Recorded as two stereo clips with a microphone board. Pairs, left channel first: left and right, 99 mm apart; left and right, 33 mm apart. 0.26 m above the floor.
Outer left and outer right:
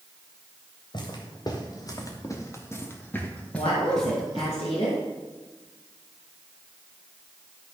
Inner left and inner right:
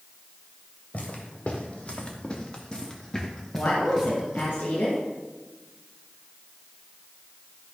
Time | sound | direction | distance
0.9 | footsteps | 50° left (ahead or behind) | 3 m
3.5 | a woman speaking | 70° left (ahead or behind) | 4 m